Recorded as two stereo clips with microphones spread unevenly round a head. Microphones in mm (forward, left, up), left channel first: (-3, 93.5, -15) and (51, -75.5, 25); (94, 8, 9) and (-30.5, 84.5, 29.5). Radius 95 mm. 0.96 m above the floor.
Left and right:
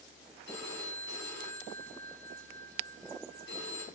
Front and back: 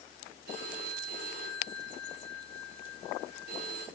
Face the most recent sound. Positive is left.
turn(degrees=145)